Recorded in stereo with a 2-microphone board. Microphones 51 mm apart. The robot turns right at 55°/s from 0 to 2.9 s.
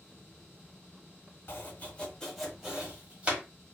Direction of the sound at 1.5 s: 50° left (ahead or behind).